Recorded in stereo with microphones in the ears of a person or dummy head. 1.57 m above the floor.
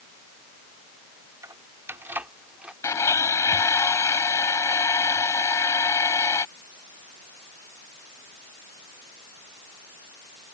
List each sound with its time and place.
1.4 s keys jangling: 15° right (ahead or behind); by 2.7 s 5° right (ahead or behind)
2.8 s a blender: 15° left (ahead or behind)